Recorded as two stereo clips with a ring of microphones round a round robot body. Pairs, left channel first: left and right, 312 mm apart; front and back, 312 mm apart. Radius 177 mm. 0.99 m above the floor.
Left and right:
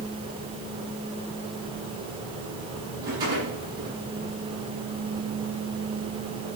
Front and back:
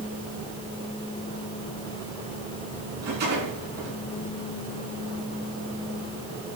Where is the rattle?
165° right, 9 m.